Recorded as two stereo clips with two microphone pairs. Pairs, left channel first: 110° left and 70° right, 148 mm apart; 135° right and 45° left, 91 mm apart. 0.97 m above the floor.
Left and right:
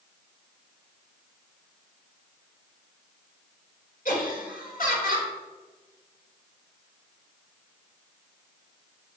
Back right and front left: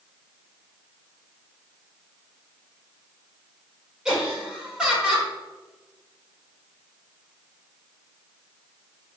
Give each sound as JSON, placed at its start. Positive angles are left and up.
{"t": 4.0, "sound": "laughter", "azimuth_deg": 130, "distance_m": 4.0}